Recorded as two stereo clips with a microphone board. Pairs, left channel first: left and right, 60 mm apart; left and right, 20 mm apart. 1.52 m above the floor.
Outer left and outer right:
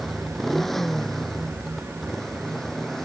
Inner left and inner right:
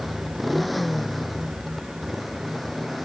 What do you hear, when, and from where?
0.0 s a motorcycle: centre (ahead or behind); by 3.1 s 5° left (ahead or behind)